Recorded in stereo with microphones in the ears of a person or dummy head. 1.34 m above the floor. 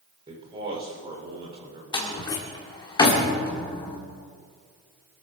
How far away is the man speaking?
About 4.5 m.